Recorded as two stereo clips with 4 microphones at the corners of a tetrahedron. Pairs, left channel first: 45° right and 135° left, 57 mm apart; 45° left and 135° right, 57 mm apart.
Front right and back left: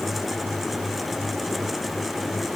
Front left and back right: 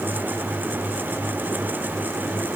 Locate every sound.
Only background noise.